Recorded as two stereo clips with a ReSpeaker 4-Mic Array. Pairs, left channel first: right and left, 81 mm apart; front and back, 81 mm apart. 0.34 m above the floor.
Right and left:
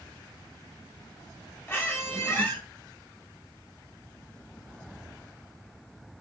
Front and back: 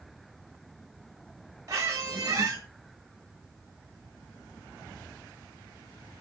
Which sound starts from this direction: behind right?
A squeak, at 1.7 s.